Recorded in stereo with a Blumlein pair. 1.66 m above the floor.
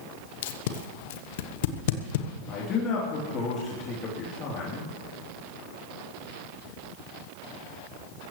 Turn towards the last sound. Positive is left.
turn(degrees=30)